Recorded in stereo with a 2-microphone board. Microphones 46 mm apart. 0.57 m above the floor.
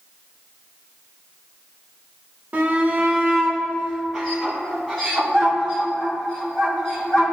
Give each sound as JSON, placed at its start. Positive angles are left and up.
{"t": 2.5, "sound": "a shout", "side_deg": -35, "distance_m": 1.3}